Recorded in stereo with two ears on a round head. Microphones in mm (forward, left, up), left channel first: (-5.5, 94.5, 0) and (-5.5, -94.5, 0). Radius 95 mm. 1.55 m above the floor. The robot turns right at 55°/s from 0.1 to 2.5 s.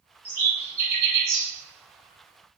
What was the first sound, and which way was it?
A bird, 10° right (ahead or behind).